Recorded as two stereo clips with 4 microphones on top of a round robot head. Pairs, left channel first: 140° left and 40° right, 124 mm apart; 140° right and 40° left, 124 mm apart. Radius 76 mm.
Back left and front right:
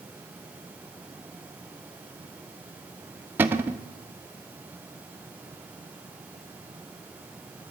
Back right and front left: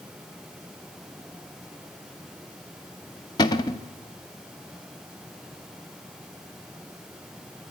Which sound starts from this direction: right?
A cupboard door, at 3.4 s.